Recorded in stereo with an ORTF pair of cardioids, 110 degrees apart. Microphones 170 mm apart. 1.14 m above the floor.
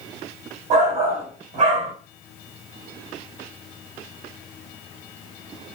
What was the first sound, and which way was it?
A shout, 45° right.